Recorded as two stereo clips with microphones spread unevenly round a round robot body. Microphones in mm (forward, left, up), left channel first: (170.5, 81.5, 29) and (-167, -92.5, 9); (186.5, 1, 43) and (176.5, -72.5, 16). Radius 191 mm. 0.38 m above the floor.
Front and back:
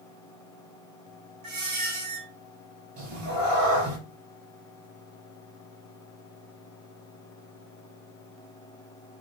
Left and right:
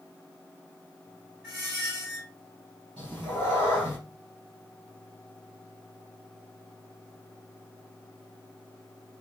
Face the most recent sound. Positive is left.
turn(degrees=-130)